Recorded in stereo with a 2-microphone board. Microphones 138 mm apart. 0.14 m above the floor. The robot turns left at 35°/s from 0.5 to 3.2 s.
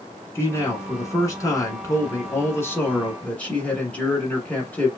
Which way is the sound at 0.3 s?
20° left (ahead or behind).